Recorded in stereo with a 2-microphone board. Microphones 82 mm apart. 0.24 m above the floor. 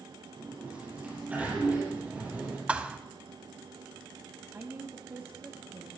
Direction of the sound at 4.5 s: 25° right (ahead or behind).